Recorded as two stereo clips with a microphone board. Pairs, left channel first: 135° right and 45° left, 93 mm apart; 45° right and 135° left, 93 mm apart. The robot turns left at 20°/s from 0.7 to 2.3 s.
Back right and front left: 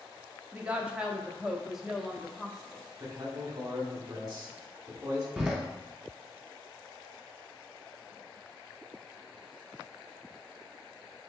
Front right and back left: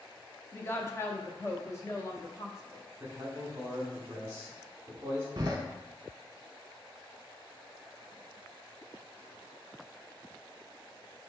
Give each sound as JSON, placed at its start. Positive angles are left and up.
{"t": 0.5, "sound": "a woman speaking", "azimuth_deg": -15, "distance_m": 0.6}
{"t": 3.0, "sound": "a man speaking", "azimuth_deg": 80, "distance_m": 1.5}
{"t": 5.4, "sound": "a door slam", "azimuth_deg": 120, "distance_m": 0.9}